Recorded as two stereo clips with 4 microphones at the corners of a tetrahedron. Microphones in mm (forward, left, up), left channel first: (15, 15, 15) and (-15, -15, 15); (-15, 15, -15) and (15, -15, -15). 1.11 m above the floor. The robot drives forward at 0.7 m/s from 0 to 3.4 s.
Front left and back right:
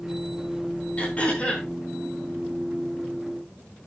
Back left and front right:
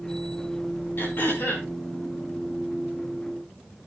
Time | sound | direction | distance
1.0 | throat clearing | 100° left | 4.5 m